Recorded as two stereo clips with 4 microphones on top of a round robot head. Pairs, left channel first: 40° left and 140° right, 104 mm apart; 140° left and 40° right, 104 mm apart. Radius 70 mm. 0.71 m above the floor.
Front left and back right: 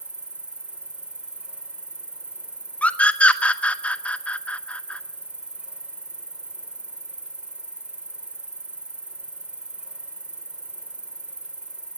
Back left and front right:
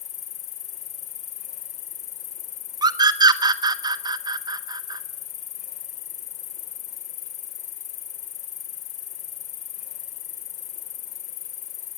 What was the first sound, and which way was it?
An insect, 140° left.